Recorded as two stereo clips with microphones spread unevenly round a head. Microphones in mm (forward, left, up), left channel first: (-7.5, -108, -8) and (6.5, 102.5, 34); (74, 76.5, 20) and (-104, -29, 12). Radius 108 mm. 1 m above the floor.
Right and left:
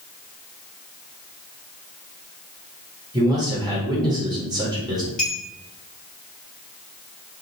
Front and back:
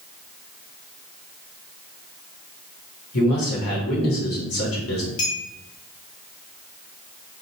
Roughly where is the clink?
Ahead.